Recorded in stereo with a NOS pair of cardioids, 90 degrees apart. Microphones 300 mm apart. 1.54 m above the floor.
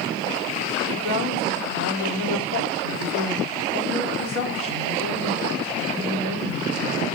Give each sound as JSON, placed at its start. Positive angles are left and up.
{"t": 0.9, "sound": "a woman speaking", "azimuth_deg": 60, "distance_m": 4.5}